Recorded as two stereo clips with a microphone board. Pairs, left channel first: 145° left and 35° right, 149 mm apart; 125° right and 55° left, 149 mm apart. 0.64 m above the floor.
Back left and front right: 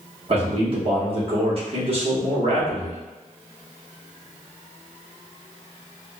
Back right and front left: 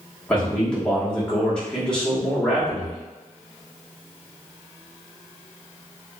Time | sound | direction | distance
0.3 | a man speaking | 45° right | 1.0 m